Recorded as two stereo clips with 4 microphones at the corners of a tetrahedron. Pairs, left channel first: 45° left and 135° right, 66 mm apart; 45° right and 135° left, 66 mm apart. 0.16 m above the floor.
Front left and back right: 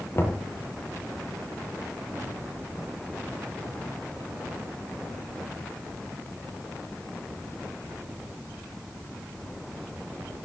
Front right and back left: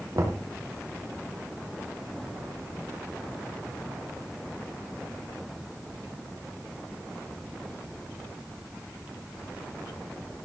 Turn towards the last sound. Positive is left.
turn(degrees=95)